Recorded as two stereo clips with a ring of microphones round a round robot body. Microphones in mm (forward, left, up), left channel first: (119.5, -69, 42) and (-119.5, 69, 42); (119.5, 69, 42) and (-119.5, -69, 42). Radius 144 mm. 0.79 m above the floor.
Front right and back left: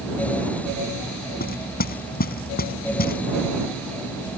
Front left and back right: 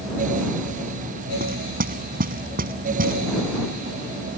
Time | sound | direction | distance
1.4 | knocking | 90° right | ?